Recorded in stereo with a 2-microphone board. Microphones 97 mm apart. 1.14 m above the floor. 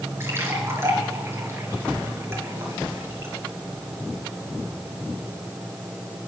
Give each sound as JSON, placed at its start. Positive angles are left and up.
{"t": 0.2, "sound": "a splash", "side_deg": -25, "distance_m": 4.0}